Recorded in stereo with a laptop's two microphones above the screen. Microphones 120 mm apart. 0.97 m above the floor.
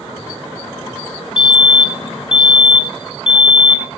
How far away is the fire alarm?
About 2.0 m.